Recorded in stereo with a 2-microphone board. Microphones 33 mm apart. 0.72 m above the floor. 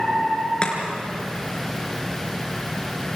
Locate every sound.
0.6 s chopping: 35° left (ahead or behind), 4 m